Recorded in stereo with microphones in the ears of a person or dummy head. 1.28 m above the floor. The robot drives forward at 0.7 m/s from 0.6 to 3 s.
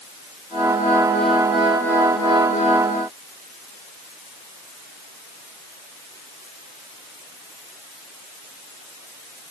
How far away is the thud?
No thud in this recording.